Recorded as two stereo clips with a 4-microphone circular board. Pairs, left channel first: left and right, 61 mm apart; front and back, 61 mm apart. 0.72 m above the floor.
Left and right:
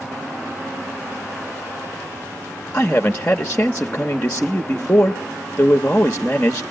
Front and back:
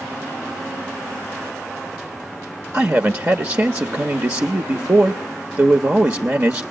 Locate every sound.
2.7 s a man speaking: 150° left, 0.8 m